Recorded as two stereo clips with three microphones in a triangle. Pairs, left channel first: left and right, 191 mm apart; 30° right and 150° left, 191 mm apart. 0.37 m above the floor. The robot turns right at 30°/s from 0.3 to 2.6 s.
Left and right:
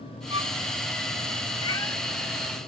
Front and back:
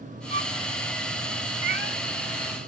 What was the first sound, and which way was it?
A violin, 45° right.